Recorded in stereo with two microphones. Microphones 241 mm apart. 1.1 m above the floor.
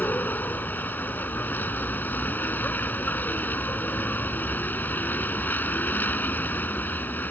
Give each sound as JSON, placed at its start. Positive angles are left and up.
{"t": 0.0, "sound": "a vehicle", "side_deg": 5}